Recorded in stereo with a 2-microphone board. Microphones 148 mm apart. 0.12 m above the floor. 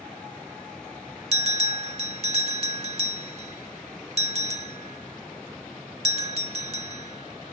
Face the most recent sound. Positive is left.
turn(degrees=-45)  # may be behind; listen again after turning